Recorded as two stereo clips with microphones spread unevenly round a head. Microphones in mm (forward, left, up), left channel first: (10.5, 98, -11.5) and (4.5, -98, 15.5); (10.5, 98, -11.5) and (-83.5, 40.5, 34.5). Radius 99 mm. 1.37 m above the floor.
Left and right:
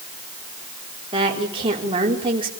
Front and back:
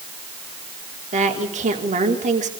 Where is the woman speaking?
160° right, 4.5 m.